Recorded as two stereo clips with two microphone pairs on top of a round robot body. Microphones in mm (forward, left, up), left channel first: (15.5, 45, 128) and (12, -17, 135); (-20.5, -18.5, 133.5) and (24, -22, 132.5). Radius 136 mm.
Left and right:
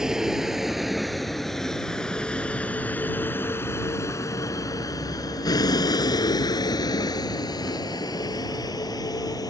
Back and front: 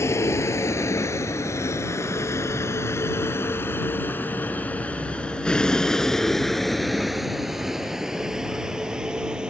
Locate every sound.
0.0 s a vehicle: 175° right; by 9.5 s 70° left